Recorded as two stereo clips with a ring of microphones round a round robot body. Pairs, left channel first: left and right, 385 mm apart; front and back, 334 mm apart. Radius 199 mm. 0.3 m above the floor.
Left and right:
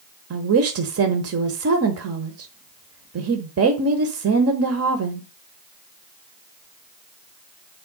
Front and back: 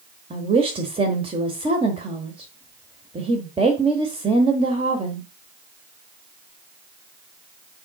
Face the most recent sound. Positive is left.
turn(degrees=-115)